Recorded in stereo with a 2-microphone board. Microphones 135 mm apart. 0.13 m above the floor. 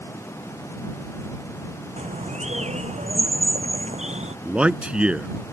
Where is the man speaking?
10° right (ahead or behind).